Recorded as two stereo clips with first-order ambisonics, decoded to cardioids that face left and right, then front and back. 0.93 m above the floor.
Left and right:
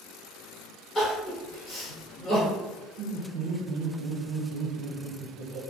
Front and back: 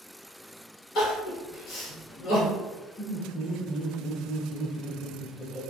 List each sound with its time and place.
0.9 s crying: 25° left, 1.4 m
3.0 s laughter: 85° right, 0.8 m